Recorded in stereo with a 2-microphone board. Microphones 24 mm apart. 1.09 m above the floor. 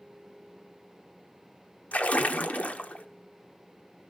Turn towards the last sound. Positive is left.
turn(degrees=70)  # may be behind; listen again after turning